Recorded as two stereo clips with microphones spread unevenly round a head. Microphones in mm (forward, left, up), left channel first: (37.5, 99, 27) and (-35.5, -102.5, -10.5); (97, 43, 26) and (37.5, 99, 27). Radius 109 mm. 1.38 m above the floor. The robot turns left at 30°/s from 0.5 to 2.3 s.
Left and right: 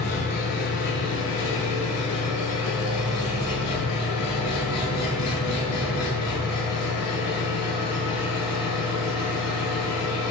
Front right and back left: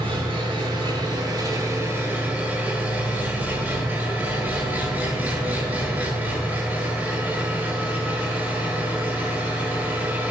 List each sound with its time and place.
0.0 s an engine running: 120° left, 8.5 m; by 10.3 s 65° left, 8.5 m